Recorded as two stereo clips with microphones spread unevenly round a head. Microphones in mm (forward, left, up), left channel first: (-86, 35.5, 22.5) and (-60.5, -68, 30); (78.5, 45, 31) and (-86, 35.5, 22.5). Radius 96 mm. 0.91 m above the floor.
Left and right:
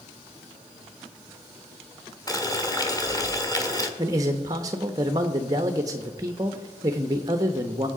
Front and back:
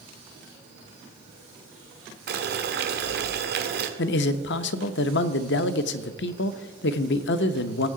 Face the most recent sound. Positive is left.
turn(degrees=-10)